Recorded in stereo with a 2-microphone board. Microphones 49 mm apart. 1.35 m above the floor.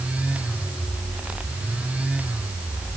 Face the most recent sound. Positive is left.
No sound to turn to.